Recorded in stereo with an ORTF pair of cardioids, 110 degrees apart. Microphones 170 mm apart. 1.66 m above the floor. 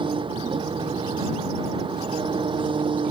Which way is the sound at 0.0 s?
30° right.